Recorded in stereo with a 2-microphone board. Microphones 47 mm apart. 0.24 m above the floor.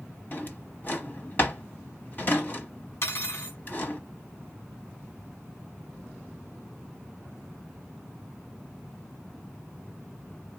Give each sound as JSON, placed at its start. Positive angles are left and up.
{"t": 0.3, "sound": "a drawer", "side_deg": 40, "distance_m": 1.0}
{"t": 3.0, "sound": "cutlery clinking", "side_deg": 55, "distance_m": 1.2}